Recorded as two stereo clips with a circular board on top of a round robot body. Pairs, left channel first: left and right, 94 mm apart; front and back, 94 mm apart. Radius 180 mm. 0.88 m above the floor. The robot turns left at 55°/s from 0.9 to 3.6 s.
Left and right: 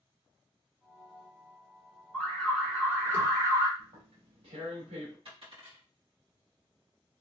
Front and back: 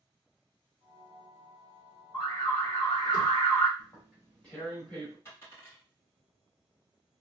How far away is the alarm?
About 1.8 m.